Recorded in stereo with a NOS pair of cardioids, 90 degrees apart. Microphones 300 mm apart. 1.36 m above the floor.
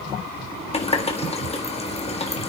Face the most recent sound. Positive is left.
turn(degrees=20)